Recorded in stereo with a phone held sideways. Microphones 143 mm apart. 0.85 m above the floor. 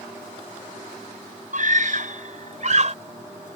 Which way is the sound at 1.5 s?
65° right (ahead or behind).